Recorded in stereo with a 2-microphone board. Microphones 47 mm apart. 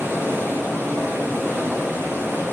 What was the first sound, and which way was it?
Running water, 50° right (ahead or behind).